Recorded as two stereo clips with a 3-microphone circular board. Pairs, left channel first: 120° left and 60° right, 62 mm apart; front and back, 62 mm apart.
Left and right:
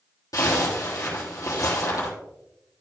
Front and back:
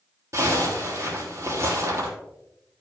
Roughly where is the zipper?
Behind left.